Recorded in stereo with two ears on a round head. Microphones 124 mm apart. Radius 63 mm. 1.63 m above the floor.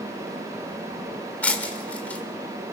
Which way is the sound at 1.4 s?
10° left (ahead or behind).